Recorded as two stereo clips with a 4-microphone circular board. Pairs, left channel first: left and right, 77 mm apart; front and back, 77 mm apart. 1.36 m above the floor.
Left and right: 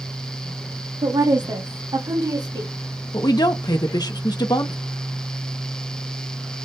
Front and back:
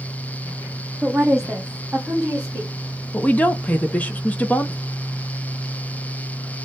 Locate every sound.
1.0 s a woman speaking: 90° right, 1.1 m; by 2.7 s 105° right, 2.5 m
3.1 s a woman speaking: 70° left, 0.7 m